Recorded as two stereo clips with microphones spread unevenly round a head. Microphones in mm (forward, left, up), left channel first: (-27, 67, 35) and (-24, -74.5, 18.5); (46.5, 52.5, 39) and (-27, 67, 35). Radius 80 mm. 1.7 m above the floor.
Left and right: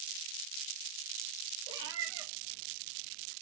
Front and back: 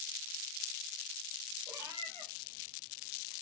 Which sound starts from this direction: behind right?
A cat meowing, at 1.7 s.